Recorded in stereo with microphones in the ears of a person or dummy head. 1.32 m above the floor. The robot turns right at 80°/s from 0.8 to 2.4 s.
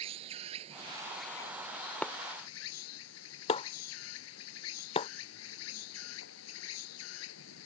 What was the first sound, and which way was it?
An insect, 35° right.